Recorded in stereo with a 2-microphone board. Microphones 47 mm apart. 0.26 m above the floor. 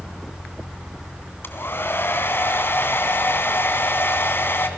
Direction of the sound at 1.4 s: 50° left (ahead or behind).